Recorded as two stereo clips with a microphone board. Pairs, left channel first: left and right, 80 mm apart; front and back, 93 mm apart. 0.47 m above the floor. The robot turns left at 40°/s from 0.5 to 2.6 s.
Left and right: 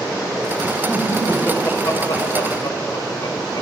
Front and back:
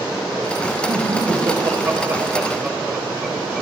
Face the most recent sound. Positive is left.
turn(degrees=95)